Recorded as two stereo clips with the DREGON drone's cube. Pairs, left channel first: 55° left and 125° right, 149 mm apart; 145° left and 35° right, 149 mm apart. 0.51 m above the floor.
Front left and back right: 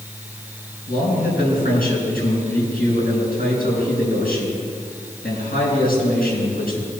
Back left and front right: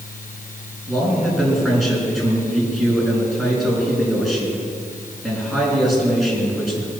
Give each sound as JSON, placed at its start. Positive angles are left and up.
{"t": 0.9, "sound": "a man speaking", "azimuth_deg": 55, "distance_m": 5.5}